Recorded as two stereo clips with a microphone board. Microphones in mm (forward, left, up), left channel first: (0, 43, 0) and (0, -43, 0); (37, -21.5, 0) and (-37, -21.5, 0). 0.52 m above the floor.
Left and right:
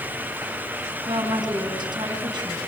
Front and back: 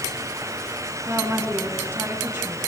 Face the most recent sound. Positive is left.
turn(degrees=-125)